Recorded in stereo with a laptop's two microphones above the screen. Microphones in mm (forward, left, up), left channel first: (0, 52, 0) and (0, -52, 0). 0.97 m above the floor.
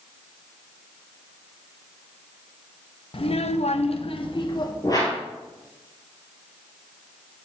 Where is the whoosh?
35° left (ahead or behind), 3.5 m.